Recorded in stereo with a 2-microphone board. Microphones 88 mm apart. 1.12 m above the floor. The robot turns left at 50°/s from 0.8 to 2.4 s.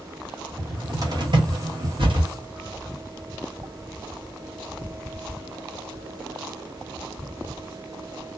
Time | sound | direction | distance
0.6 | a cupboard door | 40° right (ahead or behind) | 1.2 m